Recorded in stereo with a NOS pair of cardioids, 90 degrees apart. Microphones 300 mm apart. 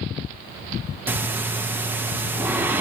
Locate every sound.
1.1 s breathing: 5° right, 0.7 m